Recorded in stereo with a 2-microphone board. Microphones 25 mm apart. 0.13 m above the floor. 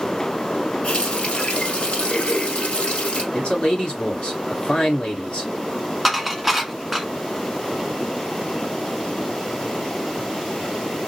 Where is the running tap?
50° left (ahead or behind), 1.6 m.